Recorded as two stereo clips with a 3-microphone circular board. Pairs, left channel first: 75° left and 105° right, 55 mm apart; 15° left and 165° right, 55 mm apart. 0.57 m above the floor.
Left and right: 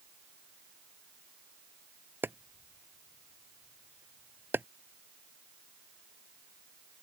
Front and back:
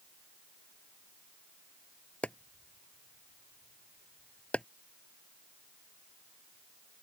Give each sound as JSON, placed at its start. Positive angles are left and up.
{"t": 2.2, "sound": "chopping", "azimuth_deg": -55}